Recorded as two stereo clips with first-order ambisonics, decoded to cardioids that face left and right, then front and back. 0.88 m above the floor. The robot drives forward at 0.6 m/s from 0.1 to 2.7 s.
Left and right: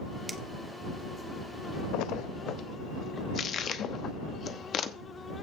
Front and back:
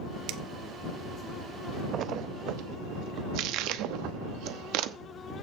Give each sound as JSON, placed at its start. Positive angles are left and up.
{"t": 0.3, "sound": "a finger snap", "azimuth_deg": -175, "distance_m": 0.9}
{"t": 1.9, "sound": "a splash", "azimuth_deg": 120, "distance_m": 0.5}